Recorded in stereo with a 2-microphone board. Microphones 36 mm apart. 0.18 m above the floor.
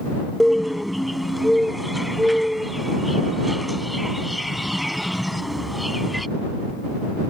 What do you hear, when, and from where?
0.4 s a bird: centre (ahead or behind)